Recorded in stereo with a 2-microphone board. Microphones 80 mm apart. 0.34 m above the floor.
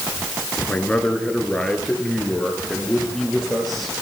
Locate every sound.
0.7 s a man speaking: 15° left (ahead or behind), 4 m; by 3.9 s centre (ahead or behind), 7 m